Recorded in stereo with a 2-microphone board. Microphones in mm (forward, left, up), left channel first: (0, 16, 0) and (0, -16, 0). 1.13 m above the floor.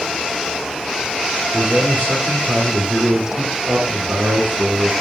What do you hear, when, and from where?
1.5 s a man speaking: 75° right (ahead or behind), 1.6 m